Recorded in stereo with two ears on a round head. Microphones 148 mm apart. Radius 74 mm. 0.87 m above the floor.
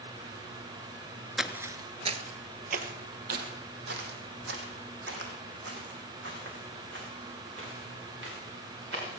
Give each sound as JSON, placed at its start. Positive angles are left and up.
{"t": 1.4, "sound": "footsteps", "side_deg": 0, "distance_m": 0.8}